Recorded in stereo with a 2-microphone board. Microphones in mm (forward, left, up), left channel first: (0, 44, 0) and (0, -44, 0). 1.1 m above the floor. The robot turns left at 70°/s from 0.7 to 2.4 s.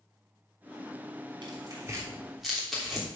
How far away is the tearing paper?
About 3 m.